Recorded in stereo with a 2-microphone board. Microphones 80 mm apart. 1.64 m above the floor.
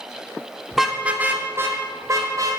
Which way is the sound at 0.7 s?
Centre (ahead or behind).